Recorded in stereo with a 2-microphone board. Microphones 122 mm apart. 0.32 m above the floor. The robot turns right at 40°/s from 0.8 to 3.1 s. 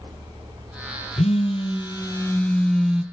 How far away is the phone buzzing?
About 1.7 m.